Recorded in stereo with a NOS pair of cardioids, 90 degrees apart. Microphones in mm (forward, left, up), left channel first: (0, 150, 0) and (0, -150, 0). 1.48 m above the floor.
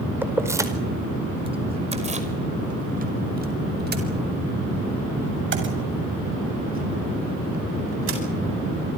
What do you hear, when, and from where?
0.2 s keys jangling: 5° right, 4.5 m; by 8.2 s 45° right, 9.5 m